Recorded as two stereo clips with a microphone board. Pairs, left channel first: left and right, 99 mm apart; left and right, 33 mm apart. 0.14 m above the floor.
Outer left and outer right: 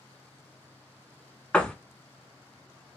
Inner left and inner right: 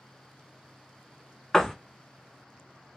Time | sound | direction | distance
1.5 | a door slam | 15° left (ahead or behind) | 0.8 m